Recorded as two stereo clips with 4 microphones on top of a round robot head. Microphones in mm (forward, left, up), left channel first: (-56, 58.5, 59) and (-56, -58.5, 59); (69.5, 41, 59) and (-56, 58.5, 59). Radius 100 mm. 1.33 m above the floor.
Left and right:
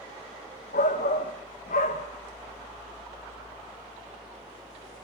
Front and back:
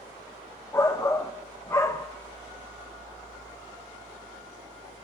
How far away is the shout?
About 1.3 m.